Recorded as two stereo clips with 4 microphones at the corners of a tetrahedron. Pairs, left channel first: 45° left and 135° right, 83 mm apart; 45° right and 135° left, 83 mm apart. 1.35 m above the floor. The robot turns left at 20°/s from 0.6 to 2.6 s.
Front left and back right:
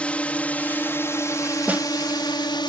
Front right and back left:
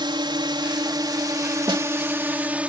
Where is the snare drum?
155° left; by 1.9 s 150° left.